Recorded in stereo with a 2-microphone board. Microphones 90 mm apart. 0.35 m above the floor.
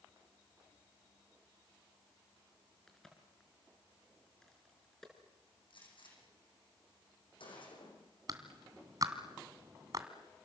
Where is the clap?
45° right (ahead or behind), 2.5 m.